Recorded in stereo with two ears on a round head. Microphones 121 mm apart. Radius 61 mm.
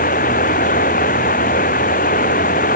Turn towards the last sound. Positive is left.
turn(degrees=65)  # may be behind; listen again after turning